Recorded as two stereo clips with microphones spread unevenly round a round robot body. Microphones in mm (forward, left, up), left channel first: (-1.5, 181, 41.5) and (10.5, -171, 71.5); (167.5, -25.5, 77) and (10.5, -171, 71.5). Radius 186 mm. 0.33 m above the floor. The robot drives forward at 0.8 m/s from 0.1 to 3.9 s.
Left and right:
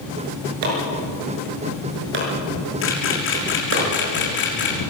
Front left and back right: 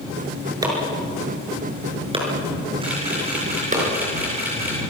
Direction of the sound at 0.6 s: 65° right.